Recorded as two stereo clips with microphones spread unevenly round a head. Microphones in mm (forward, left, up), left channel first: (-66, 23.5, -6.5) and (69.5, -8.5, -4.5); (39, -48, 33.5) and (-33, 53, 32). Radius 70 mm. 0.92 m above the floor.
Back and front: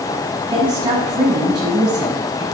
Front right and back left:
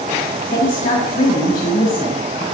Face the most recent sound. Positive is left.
turn(degrees=-75)